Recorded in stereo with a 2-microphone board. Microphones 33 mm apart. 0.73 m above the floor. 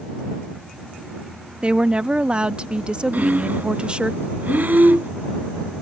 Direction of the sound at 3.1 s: 70° right (ahead or behind).